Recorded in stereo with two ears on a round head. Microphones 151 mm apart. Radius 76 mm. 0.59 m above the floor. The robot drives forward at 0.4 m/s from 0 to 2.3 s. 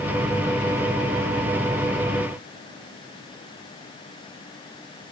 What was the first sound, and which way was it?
Only background noise.